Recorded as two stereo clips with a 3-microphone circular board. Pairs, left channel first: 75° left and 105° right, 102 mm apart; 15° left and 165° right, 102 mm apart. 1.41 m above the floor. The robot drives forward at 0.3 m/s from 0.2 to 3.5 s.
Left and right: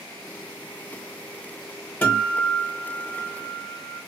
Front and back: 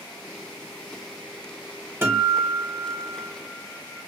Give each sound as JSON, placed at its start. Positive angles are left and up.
{"t": 2.0, "sound": "a guitar", "azimuth_deg": 140, "distance_m": 1.0}